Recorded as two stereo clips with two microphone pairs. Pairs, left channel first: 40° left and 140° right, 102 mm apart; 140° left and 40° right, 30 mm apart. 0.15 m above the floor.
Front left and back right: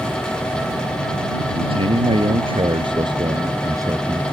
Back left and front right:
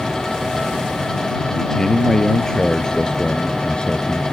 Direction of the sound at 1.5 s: 145° right.